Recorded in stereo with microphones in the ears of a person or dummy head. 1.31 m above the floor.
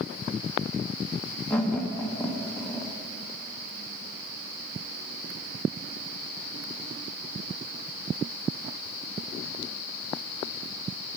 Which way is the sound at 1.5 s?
10° left (ahead or behind).